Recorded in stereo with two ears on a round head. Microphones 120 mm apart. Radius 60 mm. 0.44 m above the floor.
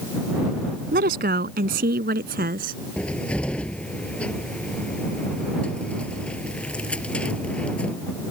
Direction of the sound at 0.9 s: 80° right.